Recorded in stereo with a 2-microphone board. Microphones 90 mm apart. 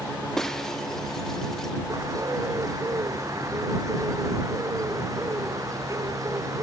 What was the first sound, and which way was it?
Breaking glass, 5° left (ahead or behind).